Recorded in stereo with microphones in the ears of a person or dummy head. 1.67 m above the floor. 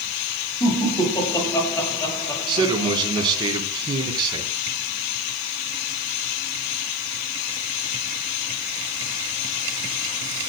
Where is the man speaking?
25° right (ahead or behind), 4 m.